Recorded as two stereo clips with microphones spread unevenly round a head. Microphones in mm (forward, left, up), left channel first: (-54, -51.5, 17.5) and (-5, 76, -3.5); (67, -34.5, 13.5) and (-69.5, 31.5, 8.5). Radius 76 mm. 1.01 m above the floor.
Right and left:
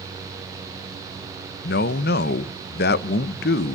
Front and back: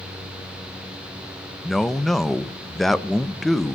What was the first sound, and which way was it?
A man speaking, 115° right.